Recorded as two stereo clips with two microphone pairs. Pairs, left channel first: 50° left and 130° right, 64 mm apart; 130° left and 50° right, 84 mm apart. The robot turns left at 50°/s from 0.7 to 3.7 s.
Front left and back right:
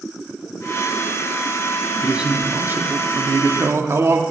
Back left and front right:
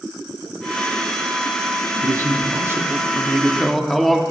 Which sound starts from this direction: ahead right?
A man speaking, at 2.0 s.